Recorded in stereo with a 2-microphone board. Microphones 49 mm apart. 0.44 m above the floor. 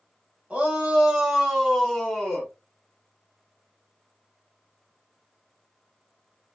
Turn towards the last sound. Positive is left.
turn(degrees=20)  # may be behind; listen again after turning